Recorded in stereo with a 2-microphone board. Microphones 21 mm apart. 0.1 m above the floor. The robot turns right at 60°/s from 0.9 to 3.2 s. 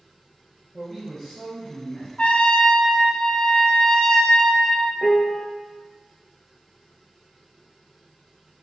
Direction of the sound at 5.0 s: 20° left (ahead or behind).